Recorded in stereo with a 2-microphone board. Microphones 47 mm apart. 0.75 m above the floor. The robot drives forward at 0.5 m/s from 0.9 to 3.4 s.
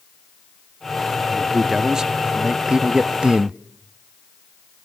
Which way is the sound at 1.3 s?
10° right (ahead or behind).